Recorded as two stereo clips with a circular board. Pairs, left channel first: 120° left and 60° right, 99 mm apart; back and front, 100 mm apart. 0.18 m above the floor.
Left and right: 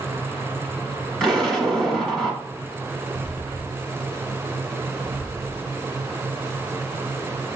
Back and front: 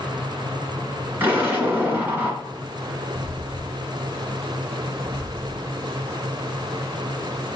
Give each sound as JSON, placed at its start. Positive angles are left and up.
{"t": 1.2, "sound": "an explosion", "azimuth_deg": 45, "distance_m": 1.2}
{"t": 3.1, "sound": "footsteps", "azimuth_deg": 140, "distance_m": 0.7}